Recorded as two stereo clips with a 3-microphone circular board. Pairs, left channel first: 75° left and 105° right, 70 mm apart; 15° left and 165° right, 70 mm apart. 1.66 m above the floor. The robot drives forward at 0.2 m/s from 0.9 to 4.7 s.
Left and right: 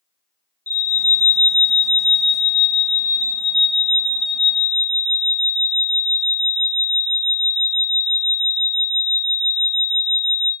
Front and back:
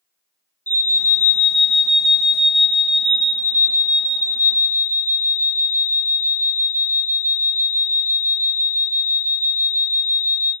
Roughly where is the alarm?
Ahead left.